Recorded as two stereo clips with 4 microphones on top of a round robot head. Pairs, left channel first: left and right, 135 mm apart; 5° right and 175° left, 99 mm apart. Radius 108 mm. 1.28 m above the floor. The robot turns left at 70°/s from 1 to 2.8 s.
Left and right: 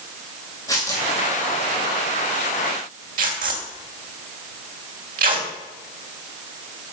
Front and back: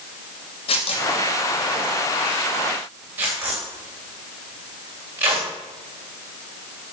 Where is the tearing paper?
20° left, 3 m; by 5.5 s 110° right, 3 m.